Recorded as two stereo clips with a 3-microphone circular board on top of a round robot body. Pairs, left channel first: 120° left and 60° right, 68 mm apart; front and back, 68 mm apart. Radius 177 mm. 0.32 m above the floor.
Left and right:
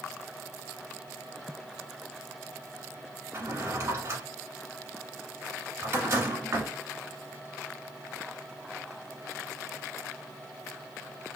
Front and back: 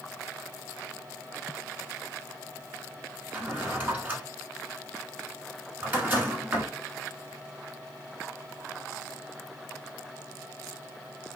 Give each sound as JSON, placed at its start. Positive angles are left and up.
{"t": 3.3, "sound": "a drawer", "azimuth_deg": -110, "distance_m": 1.2}